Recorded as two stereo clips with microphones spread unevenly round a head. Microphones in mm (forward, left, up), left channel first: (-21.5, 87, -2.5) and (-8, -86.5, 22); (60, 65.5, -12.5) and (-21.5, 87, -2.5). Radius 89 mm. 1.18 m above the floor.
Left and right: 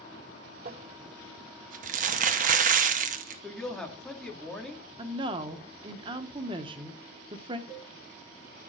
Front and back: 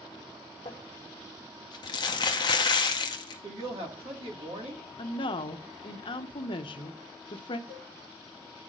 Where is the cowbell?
110° left, 1.7 m.